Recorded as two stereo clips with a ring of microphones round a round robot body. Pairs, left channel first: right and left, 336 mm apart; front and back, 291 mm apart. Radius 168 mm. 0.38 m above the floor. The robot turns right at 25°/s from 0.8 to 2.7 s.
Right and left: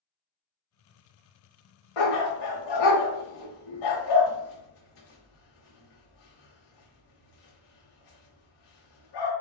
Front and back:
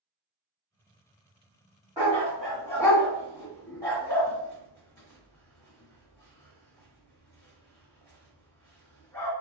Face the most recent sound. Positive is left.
turn(degrees=-80)